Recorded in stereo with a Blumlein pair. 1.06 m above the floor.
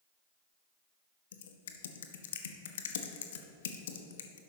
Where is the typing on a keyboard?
60° left, 0.9 m.